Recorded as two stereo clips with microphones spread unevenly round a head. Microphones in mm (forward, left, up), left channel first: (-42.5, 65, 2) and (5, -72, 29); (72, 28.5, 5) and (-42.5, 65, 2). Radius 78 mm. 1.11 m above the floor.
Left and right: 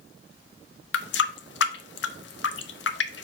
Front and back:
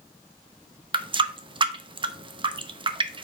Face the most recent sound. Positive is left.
turn(degrees=115)